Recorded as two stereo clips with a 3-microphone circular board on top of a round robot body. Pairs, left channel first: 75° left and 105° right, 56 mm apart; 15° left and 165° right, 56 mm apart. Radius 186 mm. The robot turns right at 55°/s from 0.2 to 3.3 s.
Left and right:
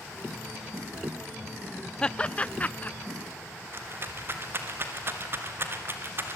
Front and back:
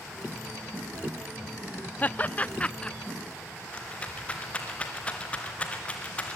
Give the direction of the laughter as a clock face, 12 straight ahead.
11 o'clock.